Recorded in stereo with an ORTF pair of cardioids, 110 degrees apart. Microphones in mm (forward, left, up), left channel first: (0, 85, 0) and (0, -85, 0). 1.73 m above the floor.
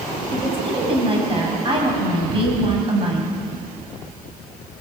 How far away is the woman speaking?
About 9.5 m.